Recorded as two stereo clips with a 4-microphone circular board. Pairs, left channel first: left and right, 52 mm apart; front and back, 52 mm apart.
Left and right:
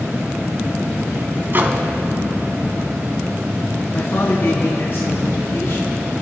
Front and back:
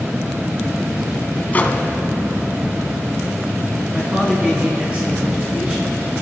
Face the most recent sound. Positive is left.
turn(degrees=120)